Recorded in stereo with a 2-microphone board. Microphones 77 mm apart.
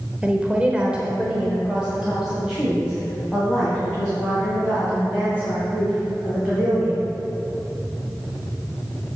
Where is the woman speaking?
15° right (ahead or behind), 0.9 m; by 7.0 s 5° right (ahead or behind), 5 m.